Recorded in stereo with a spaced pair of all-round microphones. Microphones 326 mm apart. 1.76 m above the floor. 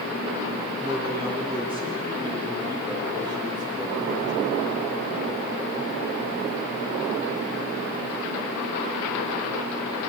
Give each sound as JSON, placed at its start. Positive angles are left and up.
{"t": 0.8, "sound": "a man speaking", "side_deg": -15, "distance_m": 10.0}